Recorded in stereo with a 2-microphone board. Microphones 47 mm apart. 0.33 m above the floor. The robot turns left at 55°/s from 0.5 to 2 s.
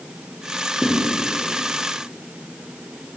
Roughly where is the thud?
Centre.